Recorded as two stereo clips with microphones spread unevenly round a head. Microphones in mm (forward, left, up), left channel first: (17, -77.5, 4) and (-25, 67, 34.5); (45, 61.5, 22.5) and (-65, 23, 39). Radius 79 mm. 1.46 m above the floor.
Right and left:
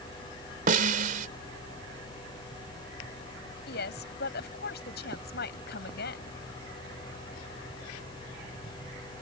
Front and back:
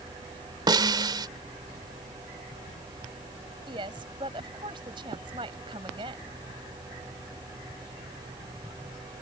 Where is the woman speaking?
100° right.